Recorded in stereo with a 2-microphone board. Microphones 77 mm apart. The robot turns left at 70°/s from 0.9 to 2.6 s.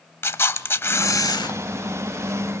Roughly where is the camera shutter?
Behind left.